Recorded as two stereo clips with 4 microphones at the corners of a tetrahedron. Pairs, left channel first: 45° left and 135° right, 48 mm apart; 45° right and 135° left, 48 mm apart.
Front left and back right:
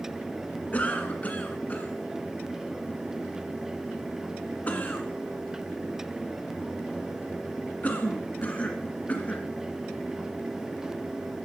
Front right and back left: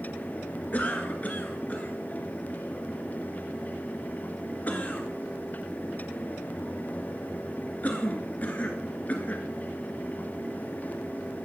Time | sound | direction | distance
0.7 | a cough | straight ahead | 1.9 m